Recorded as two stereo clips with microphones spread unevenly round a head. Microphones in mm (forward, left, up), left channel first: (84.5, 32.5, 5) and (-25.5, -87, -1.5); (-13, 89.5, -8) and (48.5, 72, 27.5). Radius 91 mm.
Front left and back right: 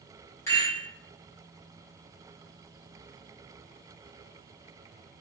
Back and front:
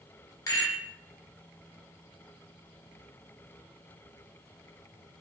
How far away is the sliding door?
No sliding door in this recording.